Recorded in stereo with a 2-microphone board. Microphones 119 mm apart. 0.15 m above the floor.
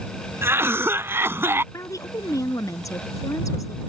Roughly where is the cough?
Right.